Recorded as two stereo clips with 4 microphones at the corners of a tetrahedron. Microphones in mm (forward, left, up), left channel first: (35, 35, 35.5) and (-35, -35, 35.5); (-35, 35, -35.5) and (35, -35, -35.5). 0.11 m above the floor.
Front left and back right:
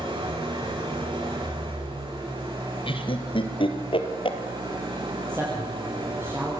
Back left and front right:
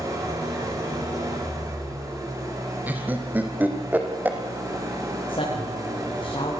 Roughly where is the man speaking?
Behind.